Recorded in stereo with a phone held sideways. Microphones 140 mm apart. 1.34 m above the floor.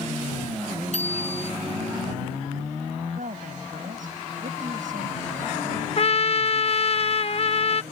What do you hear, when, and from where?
0.9 s a bicycle bell: 60° right (ahead or behind)
3.1 s a woman speaking: 70° right (ahead or behind)
6.0 s a trumpet: 45° left (ahead or behind)